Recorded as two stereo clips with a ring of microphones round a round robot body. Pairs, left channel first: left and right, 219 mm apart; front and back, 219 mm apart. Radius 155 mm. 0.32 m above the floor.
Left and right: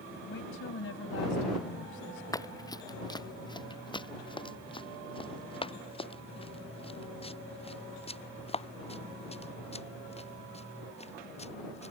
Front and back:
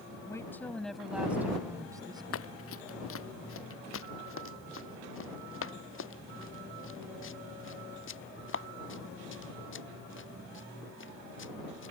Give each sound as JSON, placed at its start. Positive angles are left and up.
{"t": 0.3, "sound": "a woman speaking", "azimuth_deg": 75}
{"t": 2.3, "sound": "running footsteps", "azimuth_deg": 15}